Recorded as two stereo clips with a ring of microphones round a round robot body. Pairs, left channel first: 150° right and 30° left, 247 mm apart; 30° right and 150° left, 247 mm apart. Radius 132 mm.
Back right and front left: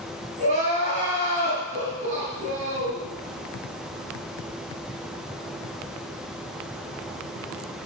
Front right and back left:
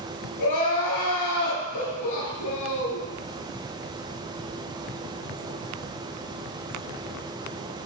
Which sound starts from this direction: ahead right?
Crying, at 0.4 s.